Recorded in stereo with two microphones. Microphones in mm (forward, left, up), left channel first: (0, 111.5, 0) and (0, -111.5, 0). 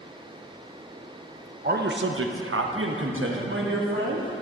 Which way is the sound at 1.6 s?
40° right (ahead or behind).